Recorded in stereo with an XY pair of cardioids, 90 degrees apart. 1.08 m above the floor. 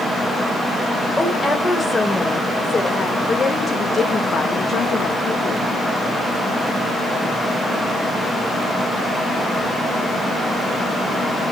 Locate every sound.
1.2 s a woman speaking: 20° left, 5.5 m; by 5.6 s 70° left, 3.5 m